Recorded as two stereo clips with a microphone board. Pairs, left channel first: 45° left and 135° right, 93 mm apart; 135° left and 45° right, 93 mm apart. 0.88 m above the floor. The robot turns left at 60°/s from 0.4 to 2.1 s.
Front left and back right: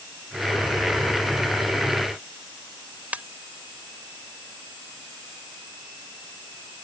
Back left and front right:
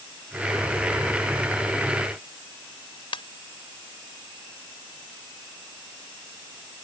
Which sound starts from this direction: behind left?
A ringtone, at 3.1 s.